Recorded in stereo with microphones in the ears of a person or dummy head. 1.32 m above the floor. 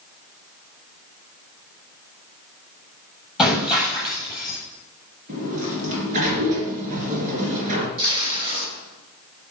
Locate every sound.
3.4 s breaking glass: centre (ahead or behind), 7.5 m
5.3 s a sliding door: 45° right (ahead or behind), 3 m
8.0 s tape being pulled: 30° right (ahead or behind), 6 m